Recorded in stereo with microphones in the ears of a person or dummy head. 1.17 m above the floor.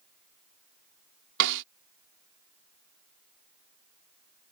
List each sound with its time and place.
1.4 s a snare drum: 65° right (ahead or behind)